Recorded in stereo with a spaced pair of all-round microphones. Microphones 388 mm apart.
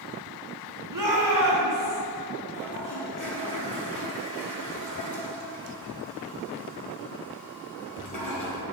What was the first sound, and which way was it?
A shout, 55° right (ahead or behind).